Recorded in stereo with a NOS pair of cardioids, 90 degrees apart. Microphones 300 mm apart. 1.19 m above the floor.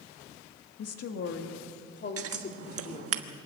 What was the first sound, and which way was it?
A woman speaking, 60° left.